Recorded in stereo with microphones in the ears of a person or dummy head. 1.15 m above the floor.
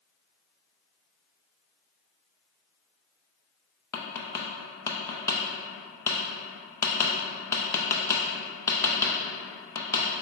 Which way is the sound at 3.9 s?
15° left (ahead or behind).